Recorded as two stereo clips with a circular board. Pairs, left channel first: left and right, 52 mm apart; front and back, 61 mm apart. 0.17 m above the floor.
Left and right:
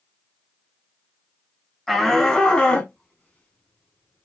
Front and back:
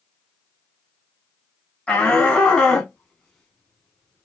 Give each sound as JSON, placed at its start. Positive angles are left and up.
{"t": 1.9, "sound": "a shout", "azimuth_deg": 15, "distance_m": 1.5}